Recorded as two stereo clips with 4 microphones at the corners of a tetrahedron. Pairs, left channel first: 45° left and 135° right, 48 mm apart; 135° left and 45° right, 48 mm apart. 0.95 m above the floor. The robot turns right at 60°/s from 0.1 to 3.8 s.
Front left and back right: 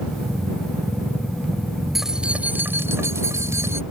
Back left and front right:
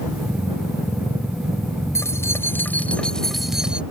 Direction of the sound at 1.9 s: 140° left.